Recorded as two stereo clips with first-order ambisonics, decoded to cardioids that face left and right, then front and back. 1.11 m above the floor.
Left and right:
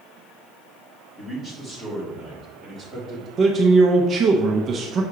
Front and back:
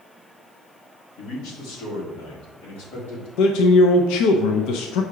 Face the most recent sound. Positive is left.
turn(degrees=-25)